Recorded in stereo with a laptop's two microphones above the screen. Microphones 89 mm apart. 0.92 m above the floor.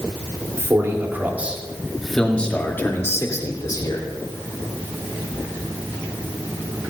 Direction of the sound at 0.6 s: 35° right (ahead or behind).